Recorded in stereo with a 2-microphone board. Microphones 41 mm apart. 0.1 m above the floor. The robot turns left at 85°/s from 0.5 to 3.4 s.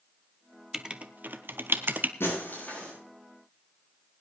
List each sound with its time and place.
0.7 s writing: 10° right (ahead or behind), 0.8 m; by 2.1 s 45° right (ahead or behind), 0.8 m
2.2 s breaking glass: 75° left, 7 m; by 2.9 s 15° left, 7 m